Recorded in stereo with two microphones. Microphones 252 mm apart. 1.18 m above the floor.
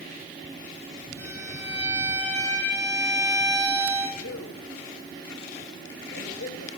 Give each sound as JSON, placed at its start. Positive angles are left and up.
{"t": 1.2, "sound": "a violin", "side_deg": 10, "distance_m": 5.5}
{"t": 4.2, "sound": "a man speaking", "side_deg": 65, "distance_m": 2.0}